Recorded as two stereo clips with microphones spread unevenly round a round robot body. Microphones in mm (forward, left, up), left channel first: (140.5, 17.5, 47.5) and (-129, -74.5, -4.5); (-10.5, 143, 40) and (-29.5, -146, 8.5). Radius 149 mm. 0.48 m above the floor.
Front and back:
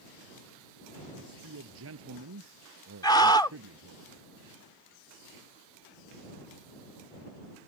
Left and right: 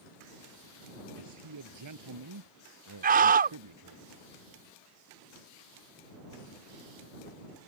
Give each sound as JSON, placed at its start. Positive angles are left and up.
{"t": 1.1, "sound": "a man speaking", "azimuth_deg": -120}
{"t": 3.0, "sound": "a scream", "azimuth_deg": -65}